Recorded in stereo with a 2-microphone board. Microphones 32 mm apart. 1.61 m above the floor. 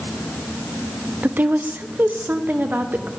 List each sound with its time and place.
1.2 s a woman speaking: 80° right, 0.6 m